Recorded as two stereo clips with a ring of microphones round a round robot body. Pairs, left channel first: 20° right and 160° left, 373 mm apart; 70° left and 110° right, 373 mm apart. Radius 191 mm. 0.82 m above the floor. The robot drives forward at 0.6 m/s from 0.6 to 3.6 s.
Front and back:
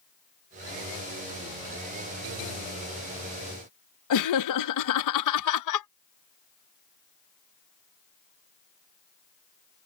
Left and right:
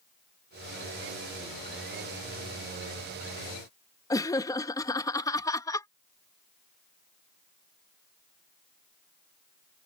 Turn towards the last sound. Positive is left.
turn(degrees=-10)